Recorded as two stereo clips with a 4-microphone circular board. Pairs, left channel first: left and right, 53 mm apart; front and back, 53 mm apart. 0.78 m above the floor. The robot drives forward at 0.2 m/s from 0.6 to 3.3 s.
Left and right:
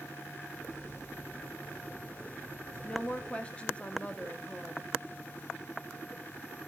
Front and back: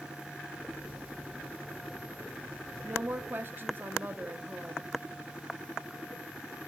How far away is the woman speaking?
About 0.6 m.